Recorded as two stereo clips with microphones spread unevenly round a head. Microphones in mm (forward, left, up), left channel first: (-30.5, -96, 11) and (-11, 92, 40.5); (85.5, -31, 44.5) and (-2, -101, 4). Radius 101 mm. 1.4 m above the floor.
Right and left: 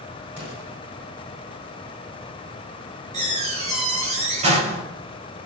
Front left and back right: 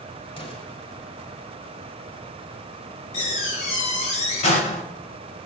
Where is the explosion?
5° left, 9 m.